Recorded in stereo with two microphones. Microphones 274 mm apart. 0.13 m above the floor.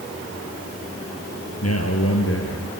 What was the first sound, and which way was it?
A man speaking, 65° left (ahead or behind).